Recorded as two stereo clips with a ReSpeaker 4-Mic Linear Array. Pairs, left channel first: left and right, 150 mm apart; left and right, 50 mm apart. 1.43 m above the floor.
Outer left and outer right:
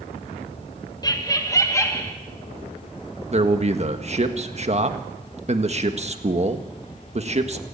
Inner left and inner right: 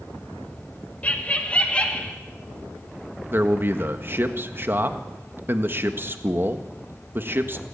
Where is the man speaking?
45° right (ahead or behind), 1.6 m.